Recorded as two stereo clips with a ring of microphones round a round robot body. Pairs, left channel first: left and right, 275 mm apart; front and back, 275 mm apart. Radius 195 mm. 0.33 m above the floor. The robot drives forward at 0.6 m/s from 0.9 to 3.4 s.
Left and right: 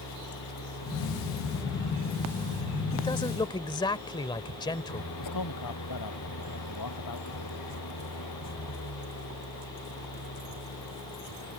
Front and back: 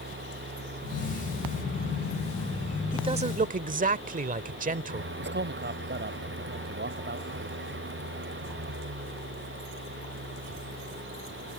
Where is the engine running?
130° left; by 11.6 s 135° left.